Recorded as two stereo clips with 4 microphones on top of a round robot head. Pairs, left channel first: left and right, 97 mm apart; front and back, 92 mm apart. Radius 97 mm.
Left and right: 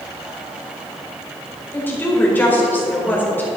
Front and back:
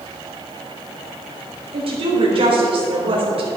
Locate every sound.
1.7 s a woman speaking: 160° left, 4 m